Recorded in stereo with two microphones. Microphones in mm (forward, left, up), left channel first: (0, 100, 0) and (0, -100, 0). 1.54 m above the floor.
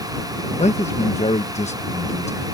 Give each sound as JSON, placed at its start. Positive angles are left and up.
{"t": 0.6, "sound": "a man speaking", "side_deg": 35}